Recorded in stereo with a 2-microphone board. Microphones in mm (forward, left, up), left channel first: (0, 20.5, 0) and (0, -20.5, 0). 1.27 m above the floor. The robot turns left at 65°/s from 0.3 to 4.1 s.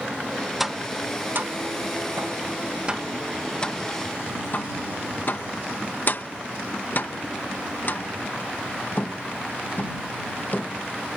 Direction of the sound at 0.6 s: 5° right (ahead or behind).